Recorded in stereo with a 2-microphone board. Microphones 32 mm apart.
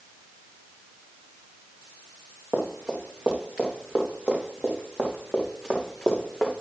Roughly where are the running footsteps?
Right.